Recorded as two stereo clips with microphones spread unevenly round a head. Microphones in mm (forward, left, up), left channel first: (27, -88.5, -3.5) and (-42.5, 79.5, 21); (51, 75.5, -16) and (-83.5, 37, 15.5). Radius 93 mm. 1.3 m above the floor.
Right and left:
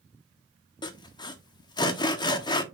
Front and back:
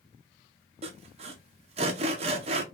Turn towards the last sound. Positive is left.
turn(degrees=-115)